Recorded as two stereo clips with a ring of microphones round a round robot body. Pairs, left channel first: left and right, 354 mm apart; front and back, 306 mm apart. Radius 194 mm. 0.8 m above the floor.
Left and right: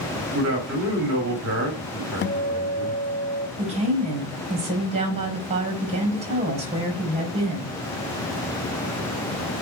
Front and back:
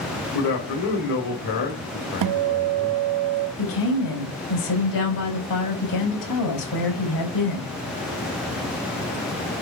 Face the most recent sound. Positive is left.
turn(degrees=-15)